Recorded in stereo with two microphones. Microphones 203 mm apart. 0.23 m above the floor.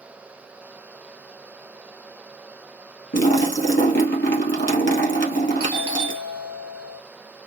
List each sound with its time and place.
3.1 s a splash: 65° left (ahead or behind), 2.0 m
5.6 s a doorbell: 25° right (ahead or behind), 2.5 m